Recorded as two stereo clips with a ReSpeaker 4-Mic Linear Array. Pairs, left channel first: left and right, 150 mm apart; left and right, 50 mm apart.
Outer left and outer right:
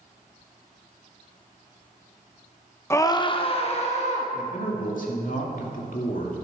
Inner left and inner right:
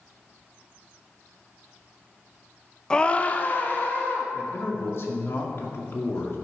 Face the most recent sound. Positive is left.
turn(degrees=60)  # may be behind; listen again after turning